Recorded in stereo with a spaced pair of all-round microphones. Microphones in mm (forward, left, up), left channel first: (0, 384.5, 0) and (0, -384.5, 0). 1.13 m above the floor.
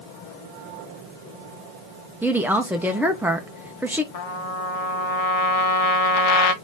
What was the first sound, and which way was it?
A woman speaking, 5° right (ahead or behind).